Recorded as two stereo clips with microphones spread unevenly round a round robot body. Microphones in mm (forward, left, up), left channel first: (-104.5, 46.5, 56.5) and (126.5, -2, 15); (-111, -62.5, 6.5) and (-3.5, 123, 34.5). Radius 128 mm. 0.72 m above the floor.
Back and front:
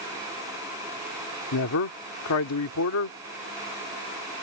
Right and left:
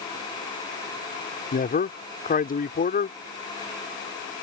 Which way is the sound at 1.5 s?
165° right.